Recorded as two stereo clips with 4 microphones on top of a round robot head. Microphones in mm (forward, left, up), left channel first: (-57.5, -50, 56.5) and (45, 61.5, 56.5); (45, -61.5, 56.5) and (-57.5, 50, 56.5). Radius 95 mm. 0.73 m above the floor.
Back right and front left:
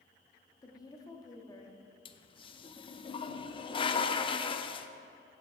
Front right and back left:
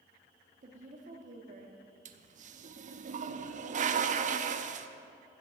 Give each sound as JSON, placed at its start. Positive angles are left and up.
{"t": 0.6, "sound": "a woman speaking", "azimuth_deg": 165, "distance_m": 1.3}
{"t": 2.0, "sound": "a toilet flushing", "azimuth_deg": 170, "distance_m": 0.5}